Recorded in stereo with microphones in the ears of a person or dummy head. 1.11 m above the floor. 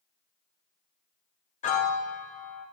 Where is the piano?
40° left (ahead or behind), 1.0 m.